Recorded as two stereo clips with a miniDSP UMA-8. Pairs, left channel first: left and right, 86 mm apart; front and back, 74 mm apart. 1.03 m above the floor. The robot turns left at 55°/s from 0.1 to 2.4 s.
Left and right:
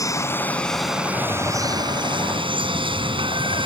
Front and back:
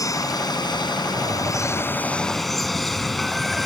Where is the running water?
40° left; by 3.7 s 85° right.